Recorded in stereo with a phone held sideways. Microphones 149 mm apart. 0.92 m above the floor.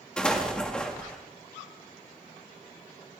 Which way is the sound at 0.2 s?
5° left (ahead or behind).